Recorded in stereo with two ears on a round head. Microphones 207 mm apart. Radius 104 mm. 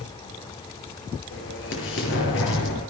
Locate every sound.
1.3 s an explosion: 55° left (ahead or behind), 6 m